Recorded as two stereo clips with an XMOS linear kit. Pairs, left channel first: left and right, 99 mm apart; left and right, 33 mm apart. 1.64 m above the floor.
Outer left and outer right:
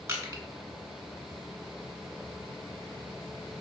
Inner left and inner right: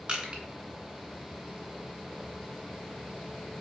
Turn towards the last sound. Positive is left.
turn(degrees=-25)  # may be behind; listen again after turning